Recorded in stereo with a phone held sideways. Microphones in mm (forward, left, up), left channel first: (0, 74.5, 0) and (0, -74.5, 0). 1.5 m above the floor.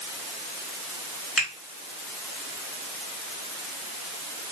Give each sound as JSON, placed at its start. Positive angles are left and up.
{"t": 1.4, "sound": "a finger snap", "side_deg": 0, "distance_m": 3.5}